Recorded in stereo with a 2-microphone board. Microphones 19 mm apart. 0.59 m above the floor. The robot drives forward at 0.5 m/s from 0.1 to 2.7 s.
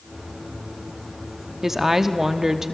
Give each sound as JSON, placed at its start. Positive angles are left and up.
{"t": 1.6, "sound": "a woman speaking", "side_deg": -20, "distance_m": 0.9}